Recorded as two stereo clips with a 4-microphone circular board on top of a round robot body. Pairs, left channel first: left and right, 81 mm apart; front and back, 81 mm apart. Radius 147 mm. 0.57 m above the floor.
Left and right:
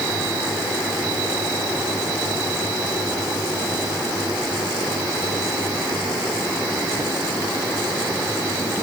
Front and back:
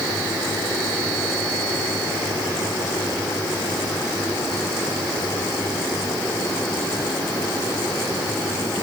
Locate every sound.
Only background noise.